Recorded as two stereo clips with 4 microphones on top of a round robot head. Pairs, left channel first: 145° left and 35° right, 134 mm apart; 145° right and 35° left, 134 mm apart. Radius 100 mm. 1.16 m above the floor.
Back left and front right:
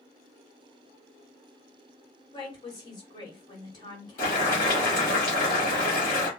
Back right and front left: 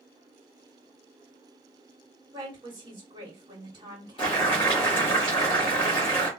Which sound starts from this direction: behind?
Boiling, at 4.2 s.